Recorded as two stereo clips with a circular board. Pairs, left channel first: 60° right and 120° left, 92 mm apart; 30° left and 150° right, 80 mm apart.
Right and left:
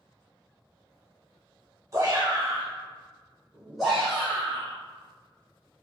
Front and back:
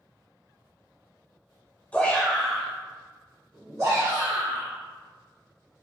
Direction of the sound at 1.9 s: 90° left.